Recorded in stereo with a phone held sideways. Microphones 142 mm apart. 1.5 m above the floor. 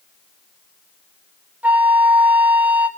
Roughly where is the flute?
Centre.